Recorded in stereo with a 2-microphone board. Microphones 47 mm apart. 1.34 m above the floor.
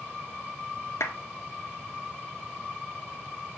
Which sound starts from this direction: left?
A clap, at 1.0 s.